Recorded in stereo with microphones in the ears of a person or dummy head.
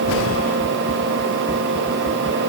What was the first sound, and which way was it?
Only background noise.